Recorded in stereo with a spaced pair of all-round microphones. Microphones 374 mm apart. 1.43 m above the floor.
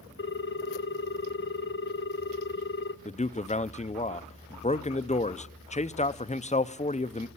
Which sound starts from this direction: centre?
A man speaking, at 3.0 s.